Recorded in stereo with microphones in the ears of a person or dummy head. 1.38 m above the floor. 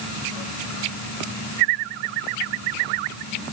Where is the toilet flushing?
No toilet flushing in this recording.